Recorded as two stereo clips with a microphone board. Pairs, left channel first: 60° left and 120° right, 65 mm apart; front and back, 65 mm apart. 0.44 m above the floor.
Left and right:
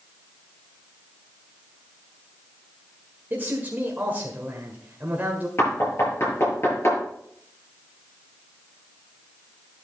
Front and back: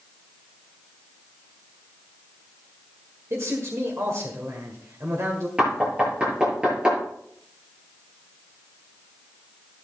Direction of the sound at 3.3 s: 170° right.